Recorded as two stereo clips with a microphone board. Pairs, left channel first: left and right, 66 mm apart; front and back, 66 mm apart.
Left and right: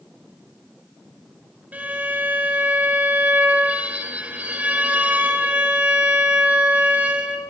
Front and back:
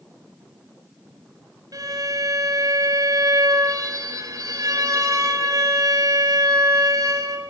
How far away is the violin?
About 5.5 m.